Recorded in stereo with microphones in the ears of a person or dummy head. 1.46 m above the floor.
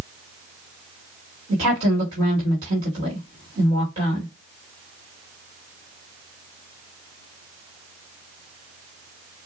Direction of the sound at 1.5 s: 35° right (ahead or behind).